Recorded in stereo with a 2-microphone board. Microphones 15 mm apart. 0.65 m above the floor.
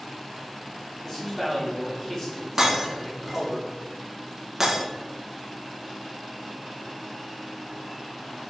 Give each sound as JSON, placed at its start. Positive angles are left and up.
{"t": 1.0, "sound": "a man speaking", "side_deg": 15, "distance_m": 1.9}
{"t": 2.6, "sound": "breaking glass", "side_deg": -20, "distance_m": 1.1}